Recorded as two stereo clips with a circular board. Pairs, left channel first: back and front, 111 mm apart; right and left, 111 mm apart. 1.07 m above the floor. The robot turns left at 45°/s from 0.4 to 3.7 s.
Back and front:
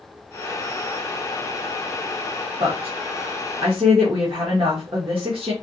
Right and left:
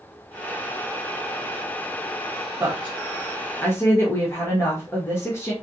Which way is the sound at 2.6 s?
25° left.